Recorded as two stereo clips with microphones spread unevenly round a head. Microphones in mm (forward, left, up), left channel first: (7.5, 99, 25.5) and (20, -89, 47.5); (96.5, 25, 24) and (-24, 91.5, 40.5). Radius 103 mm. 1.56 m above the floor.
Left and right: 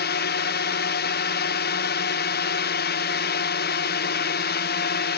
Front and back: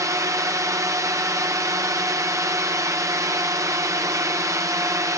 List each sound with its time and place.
0.0 s a drone: 85° left